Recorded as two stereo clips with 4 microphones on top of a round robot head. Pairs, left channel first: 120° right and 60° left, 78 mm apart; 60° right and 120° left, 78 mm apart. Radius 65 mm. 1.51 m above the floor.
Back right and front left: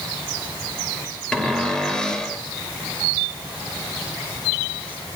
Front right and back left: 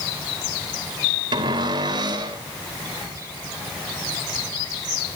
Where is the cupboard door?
155° left, 3 m.